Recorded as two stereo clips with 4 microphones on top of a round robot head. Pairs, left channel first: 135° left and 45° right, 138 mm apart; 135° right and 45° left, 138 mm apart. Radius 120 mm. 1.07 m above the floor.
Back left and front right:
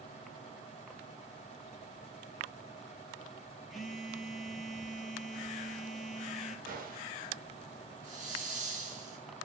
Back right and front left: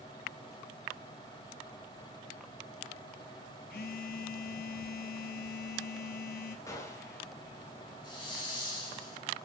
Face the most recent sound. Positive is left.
turn(degrees=-75)